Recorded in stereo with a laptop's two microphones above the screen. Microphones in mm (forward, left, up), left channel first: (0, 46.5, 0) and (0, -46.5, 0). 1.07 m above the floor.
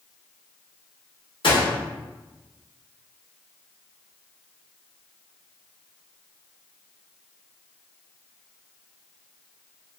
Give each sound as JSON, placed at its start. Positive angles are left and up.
{"t": 1.4, "sound": "a gunshot", "side_deg": 65, "distance_m": 1.2}